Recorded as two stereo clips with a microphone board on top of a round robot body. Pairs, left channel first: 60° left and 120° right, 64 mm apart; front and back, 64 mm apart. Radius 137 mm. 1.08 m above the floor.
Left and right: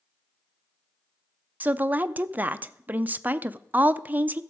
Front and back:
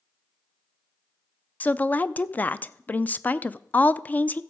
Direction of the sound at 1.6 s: 60° right.